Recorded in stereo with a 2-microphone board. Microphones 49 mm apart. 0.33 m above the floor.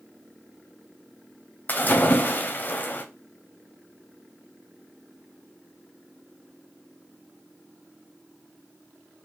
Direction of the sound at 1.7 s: 40° left (ahead or behind).